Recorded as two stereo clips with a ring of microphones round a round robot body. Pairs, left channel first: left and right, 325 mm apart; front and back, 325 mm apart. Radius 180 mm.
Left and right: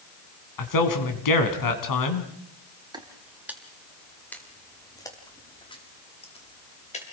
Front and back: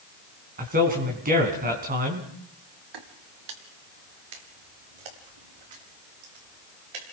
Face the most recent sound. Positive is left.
turn(degrees=160)